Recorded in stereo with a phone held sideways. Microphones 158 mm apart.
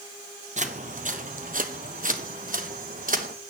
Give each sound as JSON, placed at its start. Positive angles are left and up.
{"t": 0.6, "sound": "footsteps", "side_deg": -50, "distance_m": 1.7}